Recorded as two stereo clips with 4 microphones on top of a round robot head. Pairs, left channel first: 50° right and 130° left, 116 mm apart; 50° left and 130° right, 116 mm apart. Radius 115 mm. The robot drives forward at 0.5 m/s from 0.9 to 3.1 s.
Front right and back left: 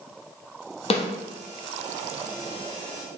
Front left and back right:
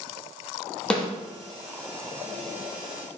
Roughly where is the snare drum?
Ahead right.